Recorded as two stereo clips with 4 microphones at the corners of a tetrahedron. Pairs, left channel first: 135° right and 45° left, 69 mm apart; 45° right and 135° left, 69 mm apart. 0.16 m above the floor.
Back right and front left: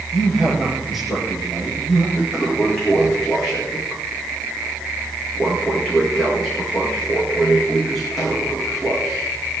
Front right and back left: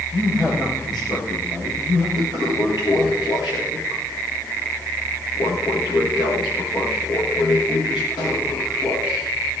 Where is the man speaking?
55° right, 7.5 m.